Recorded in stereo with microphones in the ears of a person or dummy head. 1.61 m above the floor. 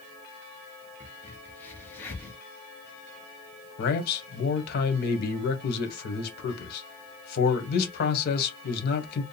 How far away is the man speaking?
About 1.3 m.